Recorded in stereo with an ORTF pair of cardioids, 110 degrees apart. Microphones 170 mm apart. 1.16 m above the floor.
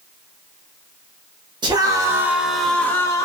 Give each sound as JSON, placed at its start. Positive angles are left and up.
{"t": 1.6, "sound": "a scream", "azimuth_deg": -25, "distance_m": 1.4}